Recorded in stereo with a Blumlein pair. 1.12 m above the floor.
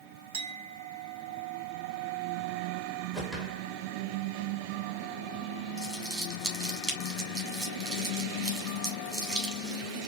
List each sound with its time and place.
0.3 s a clink: 50° right, 1.3 m
3.1 s a whoosh: 10° right, 1.5 m
5.8 s crumpling: 20° right, 2.5 m